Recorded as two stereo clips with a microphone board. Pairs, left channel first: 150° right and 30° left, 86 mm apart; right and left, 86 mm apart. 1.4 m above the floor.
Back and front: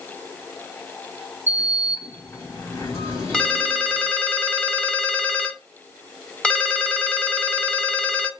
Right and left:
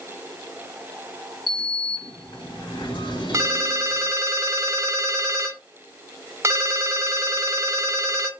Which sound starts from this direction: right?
A sliding door, at 1.5 s.